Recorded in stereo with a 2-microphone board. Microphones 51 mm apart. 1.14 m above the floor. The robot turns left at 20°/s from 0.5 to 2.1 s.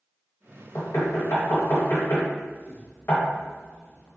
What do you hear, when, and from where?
0.8 s knocking: 75° left (ahead or behind), 1.1 m; by 4.1 s 50° left (ahead or behind), 1.1 m